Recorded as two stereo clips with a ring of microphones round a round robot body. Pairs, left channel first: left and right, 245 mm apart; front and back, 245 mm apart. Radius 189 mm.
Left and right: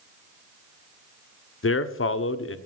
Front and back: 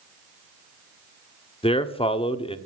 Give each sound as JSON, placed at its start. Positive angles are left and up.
{"t": 1.6, "sound": "a man speaking", "azimuth_deg": 65, "distance_m": 1.3}